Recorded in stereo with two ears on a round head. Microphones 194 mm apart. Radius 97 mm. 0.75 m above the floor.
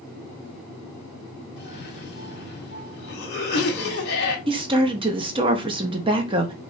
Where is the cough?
50° left (ahead or behind), 1.8 m.